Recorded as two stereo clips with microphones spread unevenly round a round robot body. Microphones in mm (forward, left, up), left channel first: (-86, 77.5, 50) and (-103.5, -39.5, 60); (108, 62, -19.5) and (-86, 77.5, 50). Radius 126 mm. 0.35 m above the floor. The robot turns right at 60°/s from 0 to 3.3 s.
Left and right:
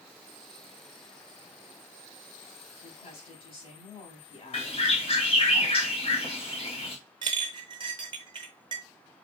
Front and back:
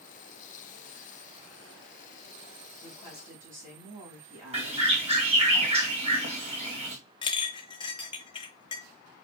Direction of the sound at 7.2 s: 50° right.